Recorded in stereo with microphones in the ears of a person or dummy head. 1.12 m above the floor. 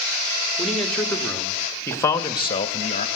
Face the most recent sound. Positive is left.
turn(degrees=40)  # may be behind; listen again after turning